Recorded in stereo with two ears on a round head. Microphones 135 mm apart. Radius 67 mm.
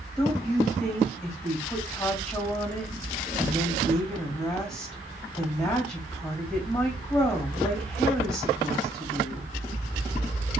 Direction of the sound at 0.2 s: 5° left (ahead or behind).